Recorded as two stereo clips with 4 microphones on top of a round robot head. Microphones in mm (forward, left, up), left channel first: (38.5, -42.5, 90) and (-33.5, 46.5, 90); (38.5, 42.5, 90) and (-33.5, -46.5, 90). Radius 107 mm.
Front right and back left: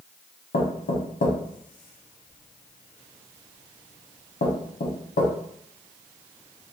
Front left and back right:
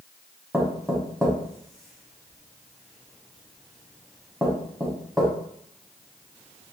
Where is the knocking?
40° right, 0.7 m.